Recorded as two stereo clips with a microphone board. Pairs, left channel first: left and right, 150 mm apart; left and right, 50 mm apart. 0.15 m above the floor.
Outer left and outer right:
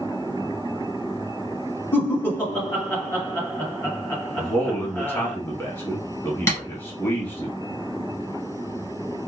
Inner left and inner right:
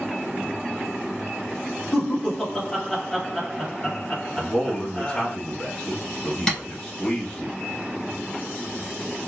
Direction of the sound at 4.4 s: 15° left (ahead or behind).